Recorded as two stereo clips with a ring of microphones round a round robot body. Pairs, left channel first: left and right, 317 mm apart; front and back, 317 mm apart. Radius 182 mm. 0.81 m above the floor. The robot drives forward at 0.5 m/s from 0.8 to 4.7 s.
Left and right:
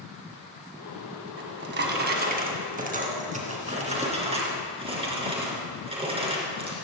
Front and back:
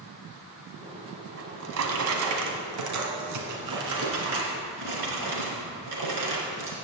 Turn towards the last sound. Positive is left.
turn(degrees=-160)